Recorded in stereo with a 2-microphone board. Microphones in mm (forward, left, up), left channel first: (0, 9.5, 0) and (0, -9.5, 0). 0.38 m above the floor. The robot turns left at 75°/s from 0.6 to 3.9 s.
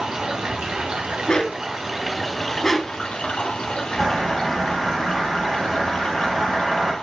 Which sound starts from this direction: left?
A dog barking, at 1.3 s.